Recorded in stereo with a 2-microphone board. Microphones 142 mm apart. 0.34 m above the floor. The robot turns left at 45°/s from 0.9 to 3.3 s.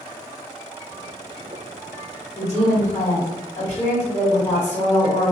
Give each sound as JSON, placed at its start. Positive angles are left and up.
{"t": 2.4, "sound": "a woman speaking", "side_deg": 20, "distance_m": 1.5}